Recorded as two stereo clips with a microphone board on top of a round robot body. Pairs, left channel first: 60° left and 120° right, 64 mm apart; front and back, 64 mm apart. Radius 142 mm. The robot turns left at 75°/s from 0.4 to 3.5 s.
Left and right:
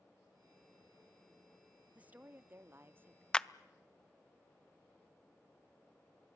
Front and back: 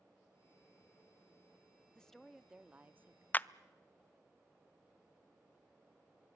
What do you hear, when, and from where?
1.9 s a woman speaking: 65° right, 0.8 m; by 3.2 s 165° right, 0.8 m
3.3 s a clap: straight ahead, 0.6 m; by 3.5 s 10° right, 0.6 m